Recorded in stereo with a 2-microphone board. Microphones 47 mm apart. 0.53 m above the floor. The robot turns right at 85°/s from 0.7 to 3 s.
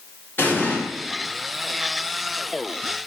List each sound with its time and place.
0.4 s an explosion: 45° left (ahead or behind), 0.8 m; by 0.8 s 40° left (ahead or behind), 0.8 m